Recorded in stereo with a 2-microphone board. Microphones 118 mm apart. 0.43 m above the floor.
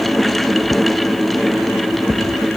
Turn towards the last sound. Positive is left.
No sound to turn to.